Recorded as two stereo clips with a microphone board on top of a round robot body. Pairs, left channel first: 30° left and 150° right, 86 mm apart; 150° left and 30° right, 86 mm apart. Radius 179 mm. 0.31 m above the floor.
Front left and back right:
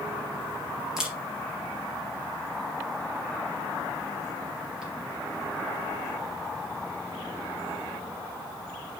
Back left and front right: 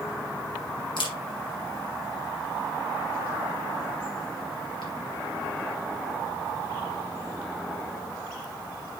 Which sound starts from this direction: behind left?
A camera shutter, at 1.0 s.